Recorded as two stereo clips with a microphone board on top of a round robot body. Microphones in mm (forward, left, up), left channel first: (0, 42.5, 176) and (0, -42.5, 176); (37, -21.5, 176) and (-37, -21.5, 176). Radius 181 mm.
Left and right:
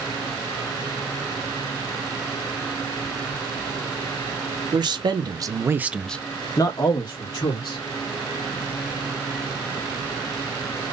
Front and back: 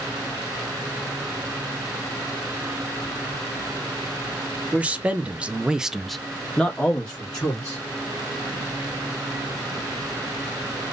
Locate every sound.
4.7 s a man speaking: 110° right, 1.3 m; by 7.8 s 70° left, 1.7 m